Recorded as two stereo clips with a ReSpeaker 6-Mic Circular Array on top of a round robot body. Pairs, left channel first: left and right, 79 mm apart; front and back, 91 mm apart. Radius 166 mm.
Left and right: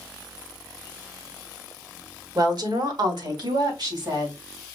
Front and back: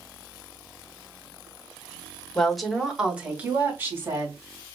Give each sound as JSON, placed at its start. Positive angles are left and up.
{"t": 2.4, "sound": "a woman speaking", "azimuth_deg": -80, "distance_m": 1.8}